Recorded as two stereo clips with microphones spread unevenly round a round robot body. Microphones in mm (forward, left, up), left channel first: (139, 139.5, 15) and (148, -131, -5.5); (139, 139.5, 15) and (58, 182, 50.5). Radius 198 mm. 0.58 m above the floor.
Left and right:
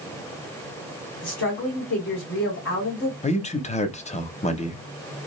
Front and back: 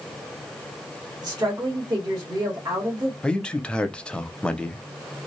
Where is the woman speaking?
100° left, 1.5 m.